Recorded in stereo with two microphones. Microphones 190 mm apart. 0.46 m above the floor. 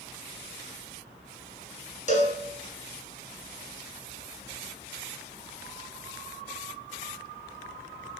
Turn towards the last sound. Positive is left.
turn(degrees=40)  # may be behind; listen again after turning